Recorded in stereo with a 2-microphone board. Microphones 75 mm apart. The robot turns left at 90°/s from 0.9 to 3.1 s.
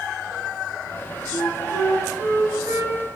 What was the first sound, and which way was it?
A flute, 60° left.